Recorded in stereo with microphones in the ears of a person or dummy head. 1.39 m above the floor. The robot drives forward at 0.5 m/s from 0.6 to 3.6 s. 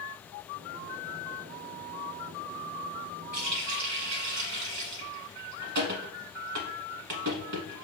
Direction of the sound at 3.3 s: 55° right (ahead or behind).